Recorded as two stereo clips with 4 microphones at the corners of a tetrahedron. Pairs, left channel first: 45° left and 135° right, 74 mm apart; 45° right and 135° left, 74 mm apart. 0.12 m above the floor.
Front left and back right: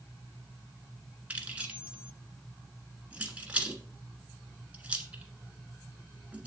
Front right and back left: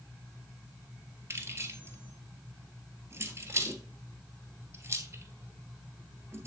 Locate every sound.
1.3 s keys jangling: 160° left, 1.5 m